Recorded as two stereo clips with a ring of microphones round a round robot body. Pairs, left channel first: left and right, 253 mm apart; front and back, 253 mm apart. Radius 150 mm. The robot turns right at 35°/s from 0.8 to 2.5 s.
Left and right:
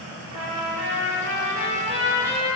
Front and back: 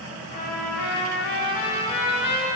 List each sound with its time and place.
0.3 s a trumpet: 60° right, 0.6 m; by 2.5 s straight ahead, 0.6 m